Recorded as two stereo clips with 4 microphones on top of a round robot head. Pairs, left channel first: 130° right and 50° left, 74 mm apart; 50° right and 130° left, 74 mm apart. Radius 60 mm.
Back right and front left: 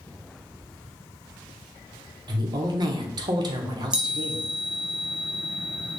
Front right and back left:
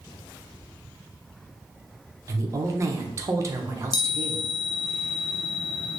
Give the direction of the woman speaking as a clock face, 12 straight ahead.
9 o'clock.